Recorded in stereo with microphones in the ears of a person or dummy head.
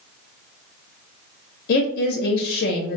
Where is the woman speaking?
55° left (ahead or behind), 0.5 m.